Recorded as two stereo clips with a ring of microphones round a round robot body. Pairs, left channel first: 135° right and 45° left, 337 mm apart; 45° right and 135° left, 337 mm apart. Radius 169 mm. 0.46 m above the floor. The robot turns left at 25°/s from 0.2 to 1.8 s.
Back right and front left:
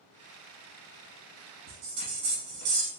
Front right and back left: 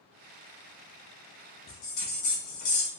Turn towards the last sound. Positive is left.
turn(degrees=0)